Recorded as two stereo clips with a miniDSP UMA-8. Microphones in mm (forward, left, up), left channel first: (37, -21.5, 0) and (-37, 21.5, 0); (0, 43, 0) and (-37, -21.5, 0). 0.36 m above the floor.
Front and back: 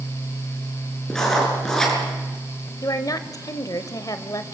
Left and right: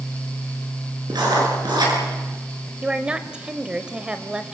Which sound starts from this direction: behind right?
Writing, at 1.1 s.